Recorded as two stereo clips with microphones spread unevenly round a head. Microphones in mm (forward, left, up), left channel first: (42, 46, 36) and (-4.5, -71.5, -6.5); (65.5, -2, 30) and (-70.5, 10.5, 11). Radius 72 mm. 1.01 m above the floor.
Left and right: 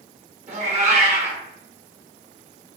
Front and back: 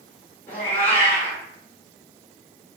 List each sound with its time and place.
0.5 s a cat meowing: 80° right, 1.1 m